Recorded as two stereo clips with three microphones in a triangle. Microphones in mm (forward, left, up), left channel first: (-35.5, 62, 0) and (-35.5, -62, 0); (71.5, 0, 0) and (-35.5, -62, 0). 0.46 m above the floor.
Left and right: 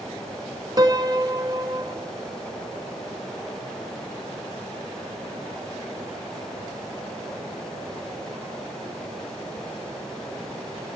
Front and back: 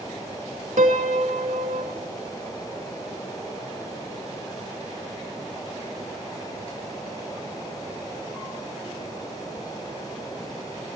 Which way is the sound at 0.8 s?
145° right.